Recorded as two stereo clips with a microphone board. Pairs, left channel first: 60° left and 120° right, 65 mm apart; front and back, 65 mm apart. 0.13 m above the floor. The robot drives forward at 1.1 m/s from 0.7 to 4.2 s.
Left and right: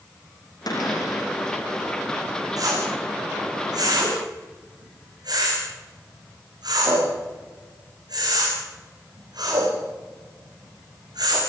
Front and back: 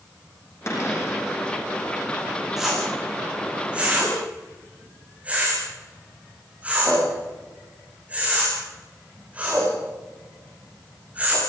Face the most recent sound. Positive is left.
turn(degrees=-110)